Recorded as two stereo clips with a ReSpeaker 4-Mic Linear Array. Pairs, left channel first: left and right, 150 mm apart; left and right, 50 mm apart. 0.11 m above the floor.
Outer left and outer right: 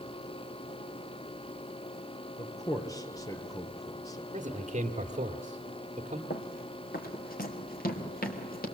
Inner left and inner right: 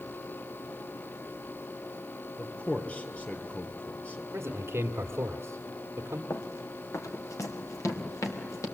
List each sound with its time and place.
2.4 s a man speaking: 25° left (ahead or behind), 2 m
4.3 s a man speaking: 50° right (ahead or behind), 1.8 m
6.3 s running footsteps: 75° left (ahead or behind), 1.9 m